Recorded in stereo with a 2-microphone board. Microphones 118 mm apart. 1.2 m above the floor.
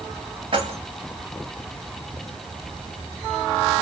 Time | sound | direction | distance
0.5 | keys jangling | 45° right (ahead or behind) | 1.3 m